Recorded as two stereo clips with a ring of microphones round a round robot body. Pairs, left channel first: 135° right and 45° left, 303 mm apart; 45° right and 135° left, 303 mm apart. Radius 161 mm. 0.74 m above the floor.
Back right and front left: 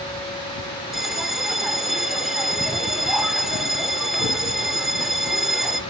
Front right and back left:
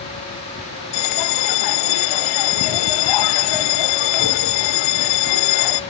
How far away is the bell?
About 0.7 m.